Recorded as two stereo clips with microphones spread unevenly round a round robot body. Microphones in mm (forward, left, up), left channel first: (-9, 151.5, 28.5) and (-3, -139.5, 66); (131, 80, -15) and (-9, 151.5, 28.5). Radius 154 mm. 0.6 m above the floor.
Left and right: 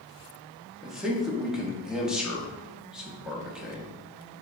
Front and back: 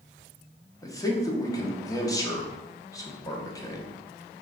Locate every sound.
0.8 s a man speaking: 5° left, 0.8 m